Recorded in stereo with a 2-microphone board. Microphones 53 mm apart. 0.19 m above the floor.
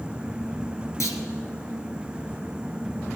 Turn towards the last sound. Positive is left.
turn(degrees=75)  # may be behind; listen again after turning